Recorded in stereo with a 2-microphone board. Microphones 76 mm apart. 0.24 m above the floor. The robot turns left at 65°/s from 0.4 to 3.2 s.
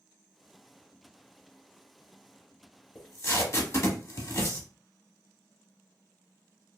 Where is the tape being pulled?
50° left (ahead or behind), 0.8 m; by 4.7 s 40° left (ahead or behind), 0.8 m.